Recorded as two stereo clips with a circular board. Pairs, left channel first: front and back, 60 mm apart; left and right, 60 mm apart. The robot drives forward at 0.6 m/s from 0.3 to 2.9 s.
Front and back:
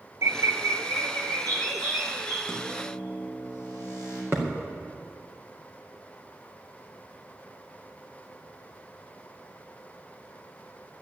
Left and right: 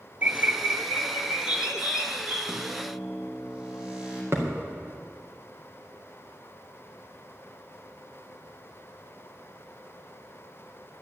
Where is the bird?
150° right, 0.7 m; by 2.4 s 170° right, 1.8 m.